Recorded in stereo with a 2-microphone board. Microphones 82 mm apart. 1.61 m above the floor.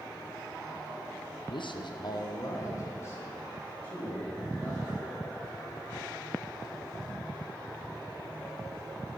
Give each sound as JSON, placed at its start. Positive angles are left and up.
{"t": 1.5, "sound": "a man speaking", "side_deg": 65, "distance_m": 0.7}